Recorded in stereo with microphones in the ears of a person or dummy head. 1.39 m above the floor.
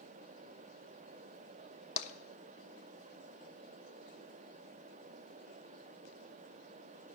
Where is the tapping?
40° left (ahead or behind), 1.0 m.